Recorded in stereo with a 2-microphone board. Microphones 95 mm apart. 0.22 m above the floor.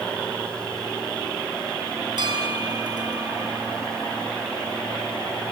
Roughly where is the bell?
Right.